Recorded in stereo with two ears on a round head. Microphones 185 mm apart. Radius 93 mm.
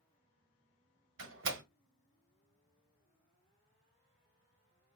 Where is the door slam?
70° right (ahead or behind), 1.4 m.